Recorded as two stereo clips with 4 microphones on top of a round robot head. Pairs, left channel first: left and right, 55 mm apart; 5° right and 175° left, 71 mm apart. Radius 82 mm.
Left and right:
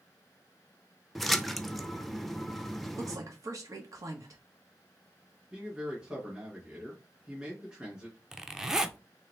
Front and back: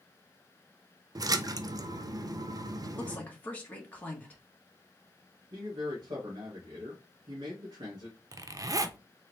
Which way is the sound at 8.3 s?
170° right.